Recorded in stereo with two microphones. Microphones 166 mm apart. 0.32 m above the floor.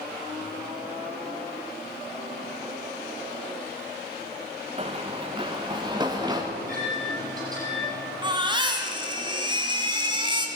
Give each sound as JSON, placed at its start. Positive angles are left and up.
{"t": 4.8, "sound": "running footsteps", "side_deg": -35, "distance_m": 1.4}
{"t": 6.5, "sound": "a microwave", "side_deg": -20, "distance_m": 9.5}
{"t": 8.2, "sound": "a baby crying", "side_deg": -25, "distance_m": 2.5}